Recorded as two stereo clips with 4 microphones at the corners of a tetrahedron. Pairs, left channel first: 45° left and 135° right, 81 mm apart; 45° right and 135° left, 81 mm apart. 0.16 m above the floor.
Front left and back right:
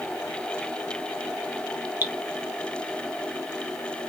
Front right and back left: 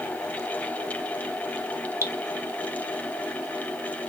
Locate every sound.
2.0 s dripping: 170° left, 0.6 m